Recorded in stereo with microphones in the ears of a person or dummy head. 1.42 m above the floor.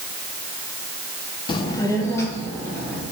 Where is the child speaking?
30° left (ahead or behind), 0.5 m; by 3.0 s 15° left (ahead or behind), 2.5 m.